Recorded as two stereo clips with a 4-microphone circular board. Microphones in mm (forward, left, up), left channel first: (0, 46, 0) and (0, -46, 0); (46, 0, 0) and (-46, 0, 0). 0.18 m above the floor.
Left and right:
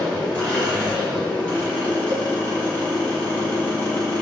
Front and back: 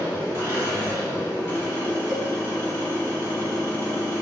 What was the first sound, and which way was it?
An engine running, 35° left.